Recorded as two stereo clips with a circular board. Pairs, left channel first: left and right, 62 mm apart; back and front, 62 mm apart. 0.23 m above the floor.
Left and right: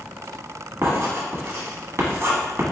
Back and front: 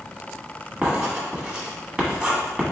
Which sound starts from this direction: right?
Writing, at 0.8 s.